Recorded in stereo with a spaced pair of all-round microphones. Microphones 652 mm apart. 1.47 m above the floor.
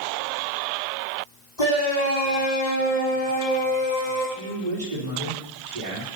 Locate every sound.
1.6 s a shout: 85° left, 4.5 m; by 4.2 s 80° left, 7 m
4.3 s a man speaking: 85° right, 4 m